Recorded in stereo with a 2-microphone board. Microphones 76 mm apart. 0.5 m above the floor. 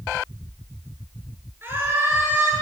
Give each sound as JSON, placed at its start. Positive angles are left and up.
{"t": 1.6, "sound": "a scream", "side_deg": -30, "distance_m": 7.5}